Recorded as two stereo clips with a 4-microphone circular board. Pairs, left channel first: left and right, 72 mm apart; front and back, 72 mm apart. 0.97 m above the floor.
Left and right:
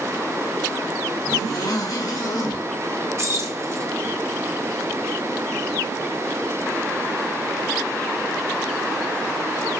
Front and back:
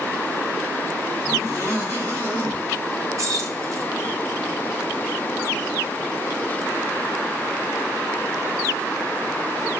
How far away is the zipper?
About 2.5 m.